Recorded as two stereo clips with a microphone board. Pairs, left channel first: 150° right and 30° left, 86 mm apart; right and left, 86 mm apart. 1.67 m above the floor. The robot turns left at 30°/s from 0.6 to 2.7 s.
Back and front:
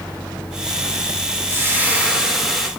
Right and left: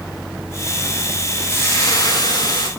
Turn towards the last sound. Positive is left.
turn(degrees=-65)